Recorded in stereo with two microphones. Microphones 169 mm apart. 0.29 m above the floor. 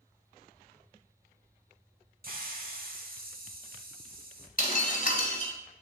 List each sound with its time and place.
2.2 s a hiss: 60° right (ahead or behind), 0.7 m
4.6 s breaking glass: 60° left (ahead or behind), 1.2 m